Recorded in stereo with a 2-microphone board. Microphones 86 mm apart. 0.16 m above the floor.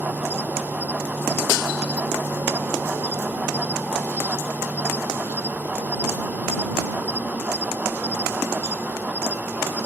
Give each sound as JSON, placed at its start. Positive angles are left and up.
{"t": 0.0, "sound": "an insect", "side_deg": -20}